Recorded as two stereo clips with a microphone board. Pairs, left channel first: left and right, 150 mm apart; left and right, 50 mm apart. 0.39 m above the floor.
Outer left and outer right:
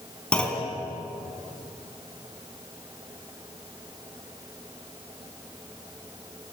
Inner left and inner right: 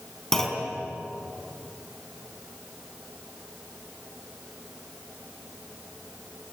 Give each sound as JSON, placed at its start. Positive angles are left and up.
{"t": 0.3, "sound": "a clunk", "side_deg": 5, "distance_m": 4.0}